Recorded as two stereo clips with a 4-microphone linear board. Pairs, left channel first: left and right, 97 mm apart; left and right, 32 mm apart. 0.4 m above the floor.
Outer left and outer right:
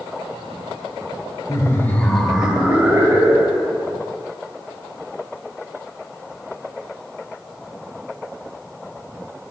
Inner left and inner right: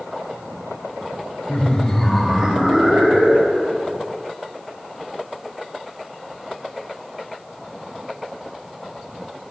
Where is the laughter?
35° left (ahead or behind), 1.0 m; by 3.8 s 30° right (ahead or behind), 2.5 m.